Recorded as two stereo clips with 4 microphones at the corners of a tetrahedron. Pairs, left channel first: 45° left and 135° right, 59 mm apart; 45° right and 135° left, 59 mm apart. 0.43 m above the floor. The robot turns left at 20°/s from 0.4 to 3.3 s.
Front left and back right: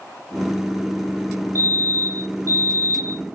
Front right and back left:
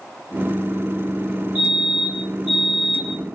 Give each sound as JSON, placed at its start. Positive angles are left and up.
{"t": 1.6, "sound": "a fire alarm", "azimuth_deg": 75, "distance_m": 3.5}